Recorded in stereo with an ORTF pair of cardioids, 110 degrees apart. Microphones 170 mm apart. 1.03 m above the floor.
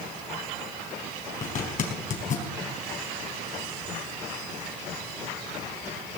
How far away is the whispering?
No whispering in this recording.